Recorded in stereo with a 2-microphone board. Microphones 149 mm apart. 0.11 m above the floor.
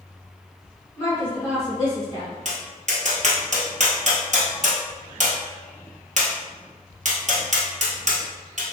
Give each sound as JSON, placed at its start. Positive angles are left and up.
{"t": 1.0, "sound": "a woman speaking", "side_deg": 20, "distance_m": 1.6}
{"t": 2.5, "sound": "tapping", "side_deg": -55, "distance_m": 1.1}